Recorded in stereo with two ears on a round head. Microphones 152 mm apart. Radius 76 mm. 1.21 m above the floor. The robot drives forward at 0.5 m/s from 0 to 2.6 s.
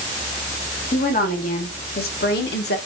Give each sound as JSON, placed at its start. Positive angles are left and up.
{"t": 0.9, "sound": "a woman speaking", "side_deg": 45, "distance_m": 1.8}